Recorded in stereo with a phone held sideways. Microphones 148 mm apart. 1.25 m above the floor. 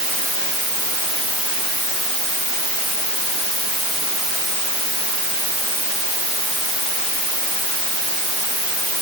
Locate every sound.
Only background noise.